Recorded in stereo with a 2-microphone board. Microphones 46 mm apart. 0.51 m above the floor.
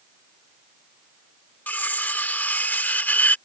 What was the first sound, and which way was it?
Cutlery clinking, 35° left (ahead or behind).